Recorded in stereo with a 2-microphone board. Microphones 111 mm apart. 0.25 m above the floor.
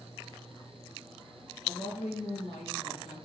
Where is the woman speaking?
70° left (ahead or behind), 4 m.